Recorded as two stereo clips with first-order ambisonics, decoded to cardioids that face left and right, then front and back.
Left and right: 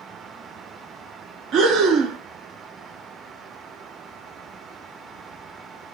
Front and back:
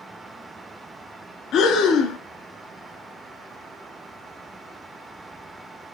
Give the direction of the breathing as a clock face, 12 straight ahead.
2 o'clock.